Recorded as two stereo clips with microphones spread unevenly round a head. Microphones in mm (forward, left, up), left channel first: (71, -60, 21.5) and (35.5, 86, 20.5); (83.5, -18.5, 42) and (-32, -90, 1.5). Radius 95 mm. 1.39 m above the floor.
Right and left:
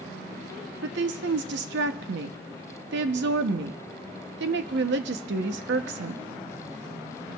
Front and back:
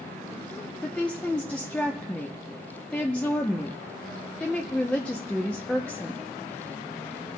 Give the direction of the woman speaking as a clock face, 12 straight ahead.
8 o'clock.